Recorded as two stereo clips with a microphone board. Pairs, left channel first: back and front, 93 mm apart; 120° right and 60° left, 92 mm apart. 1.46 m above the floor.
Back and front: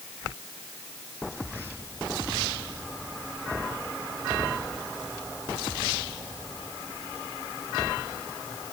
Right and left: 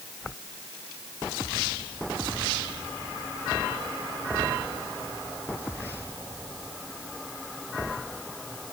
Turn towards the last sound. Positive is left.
No sound to turn to.